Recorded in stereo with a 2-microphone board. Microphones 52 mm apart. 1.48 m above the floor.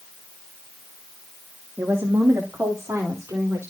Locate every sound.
1.8 s a woman speaking: 65° right (ahead or behind), 2 m; by 3.7 s 85° right, 4 m